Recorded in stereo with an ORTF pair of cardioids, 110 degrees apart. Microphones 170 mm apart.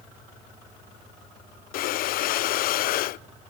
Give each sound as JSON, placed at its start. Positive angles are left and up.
{"t": 1.7, "sound": "breathing", "azimuth_deg": 65, "distance_m": 0.6}